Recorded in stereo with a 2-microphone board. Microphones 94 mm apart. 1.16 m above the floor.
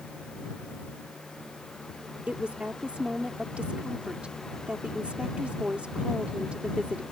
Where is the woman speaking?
15° right (ahead or behind).